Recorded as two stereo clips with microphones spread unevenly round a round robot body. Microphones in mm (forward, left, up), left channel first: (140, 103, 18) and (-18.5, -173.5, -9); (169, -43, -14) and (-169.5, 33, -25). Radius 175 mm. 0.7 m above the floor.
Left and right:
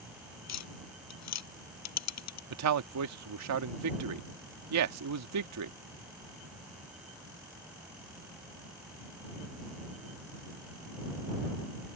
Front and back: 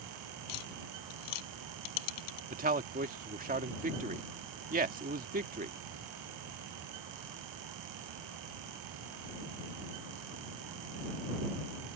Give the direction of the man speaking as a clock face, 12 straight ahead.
4 o'clock.